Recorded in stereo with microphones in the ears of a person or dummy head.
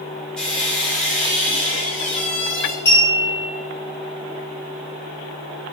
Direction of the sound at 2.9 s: 15° left (ahead or behind).